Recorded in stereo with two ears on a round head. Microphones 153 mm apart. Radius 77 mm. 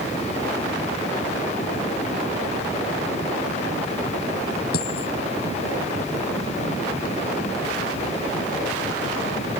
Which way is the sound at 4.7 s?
65° left (ahead or behind).